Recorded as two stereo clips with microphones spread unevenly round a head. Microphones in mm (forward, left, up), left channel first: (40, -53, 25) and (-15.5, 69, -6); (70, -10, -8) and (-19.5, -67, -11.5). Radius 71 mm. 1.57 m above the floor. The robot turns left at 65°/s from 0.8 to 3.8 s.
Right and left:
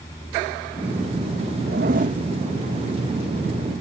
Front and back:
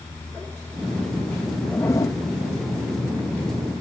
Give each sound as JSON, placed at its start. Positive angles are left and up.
{"t": 1.7, "sound": "a zipper", "azimuth_deg": 110}